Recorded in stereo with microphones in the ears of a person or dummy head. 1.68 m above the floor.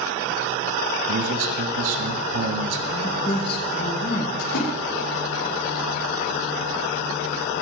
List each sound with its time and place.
1.1 s a man speaking: 75° right (ahead or behind), 1.8 m
2.9 s a man speaking: 30° left (ahead or behind), 2.5 m
4.4 s a splash: 75° left (ahead or behind), 8.5 m